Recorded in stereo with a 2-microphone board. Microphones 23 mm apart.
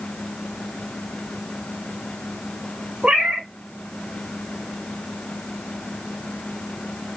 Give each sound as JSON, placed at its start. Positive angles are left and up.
{"t": 3.0, "sound": "a cat meowing", "side_deg": -50, "distance_m": 2.5}